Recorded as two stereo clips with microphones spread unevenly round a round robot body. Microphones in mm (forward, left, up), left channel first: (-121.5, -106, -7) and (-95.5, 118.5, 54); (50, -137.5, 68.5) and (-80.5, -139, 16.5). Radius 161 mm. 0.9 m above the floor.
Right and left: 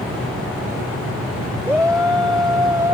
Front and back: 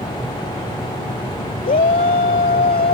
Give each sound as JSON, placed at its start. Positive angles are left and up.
{"t": 1.6, "sound": "a shout", "azimuth_deg": 0}